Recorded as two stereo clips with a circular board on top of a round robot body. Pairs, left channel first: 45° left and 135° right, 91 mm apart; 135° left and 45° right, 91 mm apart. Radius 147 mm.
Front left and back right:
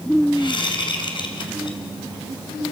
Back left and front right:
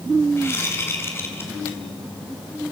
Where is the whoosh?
75° left, 3 m.